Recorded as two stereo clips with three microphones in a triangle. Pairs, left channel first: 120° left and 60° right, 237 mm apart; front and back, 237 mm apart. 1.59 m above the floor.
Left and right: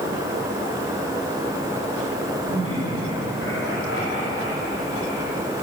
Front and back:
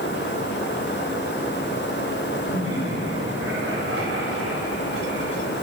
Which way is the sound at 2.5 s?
145° left.